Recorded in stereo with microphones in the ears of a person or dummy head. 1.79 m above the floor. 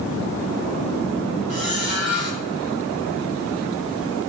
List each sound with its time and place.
1.5 s a squeak: 50° left (ahead or behind), 4 m